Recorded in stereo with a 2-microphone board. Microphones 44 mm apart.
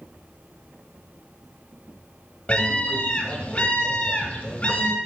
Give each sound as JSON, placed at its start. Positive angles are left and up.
{"t": 2.5, "sound": "a scream", "side_deg": 25, "distance_m": 1.4}